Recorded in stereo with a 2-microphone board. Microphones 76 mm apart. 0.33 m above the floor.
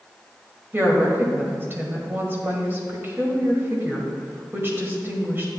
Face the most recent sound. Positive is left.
turn(degrees=-30)  # may be behind; listen again after turning